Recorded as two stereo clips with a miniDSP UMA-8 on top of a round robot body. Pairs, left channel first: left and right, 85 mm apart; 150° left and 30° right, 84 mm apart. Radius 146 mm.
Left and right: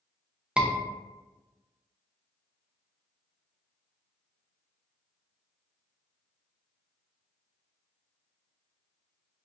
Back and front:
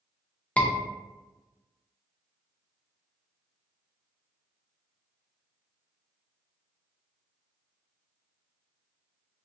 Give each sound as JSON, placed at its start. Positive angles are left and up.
{"t": 0.6, "sound": "a scream", "azimuth_deg": -155, "distance_m": 0.7}